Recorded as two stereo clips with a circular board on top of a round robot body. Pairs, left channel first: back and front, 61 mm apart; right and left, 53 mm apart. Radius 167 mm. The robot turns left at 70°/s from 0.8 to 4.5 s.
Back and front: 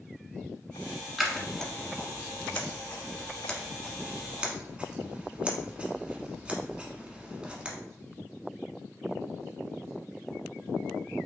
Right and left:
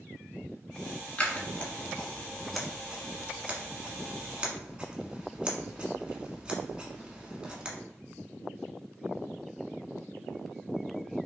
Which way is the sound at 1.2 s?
85° right.